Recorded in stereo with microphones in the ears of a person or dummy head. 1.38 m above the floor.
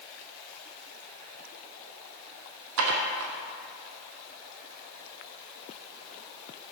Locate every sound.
2.8 s dishes clattering: 75° right (ahead or behind), 1.3 m